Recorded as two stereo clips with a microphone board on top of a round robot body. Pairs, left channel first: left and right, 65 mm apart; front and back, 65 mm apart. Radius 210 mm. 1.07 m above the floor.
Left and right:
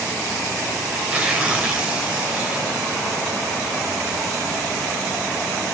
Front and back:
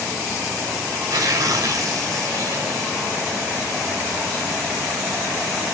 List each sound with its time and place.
0.9 s tearing paper: 165° right, 2 m